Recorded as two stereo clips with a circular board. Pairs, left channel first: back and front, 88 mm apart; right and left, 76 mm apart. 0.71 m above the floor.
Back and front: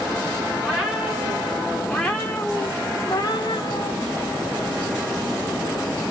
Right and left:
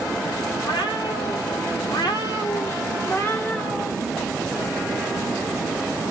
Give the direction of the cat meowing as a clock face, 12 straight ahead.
3 o'clock.